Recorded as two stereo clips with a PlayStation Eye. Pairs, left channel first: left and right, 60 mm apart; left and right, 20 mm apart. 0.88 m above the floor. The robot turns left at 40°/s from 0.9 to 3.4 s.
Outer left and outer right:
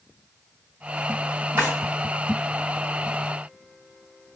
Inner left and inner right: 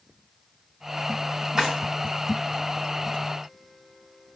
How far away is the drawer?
About 2 m.